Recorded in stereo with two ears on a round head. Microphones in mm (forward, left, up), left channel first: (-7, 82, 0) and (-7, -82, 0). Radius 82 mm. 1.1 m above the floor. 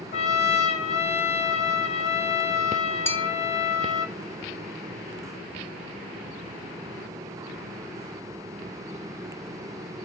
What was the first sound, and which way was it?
A trumpet, 35° left (ahead or behind).